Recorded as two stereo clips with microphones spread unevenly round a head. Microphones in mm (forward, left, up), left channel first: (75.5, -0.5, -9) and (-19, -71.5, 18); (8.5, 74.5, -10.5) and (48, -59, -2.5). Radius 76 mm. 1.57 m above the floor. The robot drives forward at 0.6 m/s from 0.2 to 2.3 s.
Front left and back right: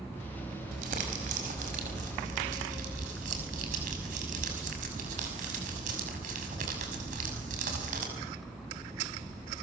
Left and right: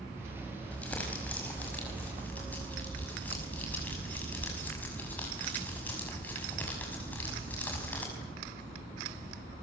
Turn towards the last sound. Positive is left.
turn(degrees=-175)